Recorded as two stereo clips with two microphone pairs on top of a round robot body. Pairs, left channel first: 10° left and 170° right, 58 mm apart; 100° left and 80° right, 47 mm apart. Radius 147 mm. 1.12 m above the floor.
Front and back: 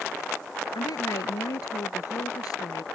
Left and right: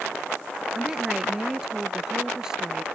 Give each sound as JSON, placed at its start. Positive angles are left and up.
{"t": 0.8, "sound": "a woman speaking", "azimuth_deg": 0}